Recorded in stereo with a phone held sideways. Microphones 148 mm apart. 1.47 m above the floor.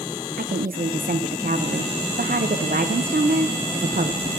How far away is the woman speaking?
About 0.7 m.